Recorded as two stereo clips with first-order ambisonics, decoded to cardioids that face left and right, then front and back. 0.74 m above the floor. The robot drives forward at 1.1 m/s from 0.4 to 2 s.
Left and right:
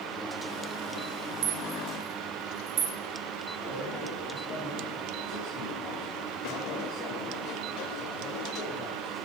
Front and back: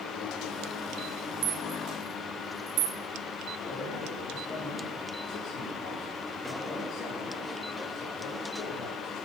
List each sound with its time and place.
1.4 s a rattle: 130° right, 2 m; by 3.0 s 140° right, 2.5 m
3.6 s a man speaking: 40° left, 8.5 m